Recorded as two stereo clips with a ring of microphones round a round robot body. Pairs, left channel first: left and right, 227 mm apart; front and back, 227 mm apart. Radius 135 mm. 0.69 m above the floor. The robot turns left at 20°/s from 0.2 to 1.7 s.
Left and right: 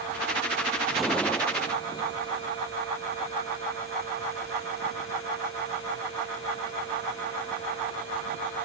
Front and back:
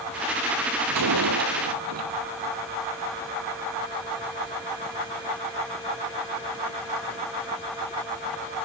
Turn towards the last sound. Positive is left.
turn(degrees=165)